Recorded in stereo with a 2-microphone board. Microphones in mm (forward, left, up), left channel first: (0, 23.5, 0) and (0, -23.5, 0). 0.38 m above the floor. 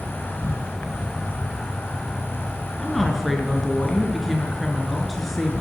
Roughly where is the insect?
Left.